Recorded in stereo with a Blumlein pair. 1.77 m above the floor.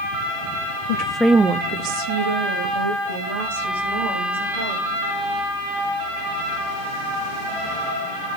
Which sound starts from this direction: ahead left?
A woman speaking, at 0.9 s.